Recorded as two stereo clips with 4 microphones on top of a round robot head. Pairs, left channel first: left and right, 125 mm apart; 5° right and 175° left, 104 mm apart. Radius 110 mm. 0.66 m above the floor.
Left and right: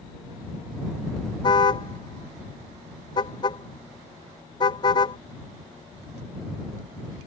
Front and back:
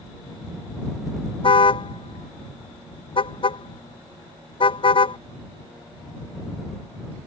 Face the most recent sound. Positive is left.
turn(degrees=30)